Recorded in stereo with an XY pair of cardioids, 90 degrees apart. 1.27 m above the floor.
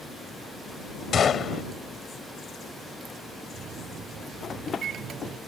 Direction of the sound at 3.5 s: 70° right.